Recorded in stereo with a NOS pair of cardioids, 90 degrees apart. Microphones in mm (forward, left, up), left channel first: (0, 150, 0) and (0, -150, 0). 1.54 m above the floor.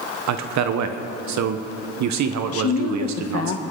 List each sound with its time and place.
0.3 s a man speaking: 65° right, 1.1 m
2.5 s a woman speaking: 50° left, 1.3 m